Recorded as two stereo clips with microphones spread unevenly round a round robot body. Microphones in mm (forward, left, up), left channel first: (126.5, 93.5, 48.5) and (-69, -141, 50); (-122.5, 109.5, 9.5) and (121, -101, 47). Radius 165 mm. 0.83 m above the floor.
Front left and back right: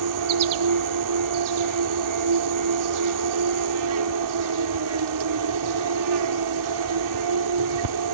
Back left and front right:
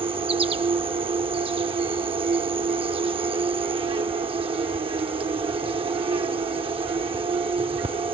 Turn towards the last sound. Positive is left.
turn(degrees=-115)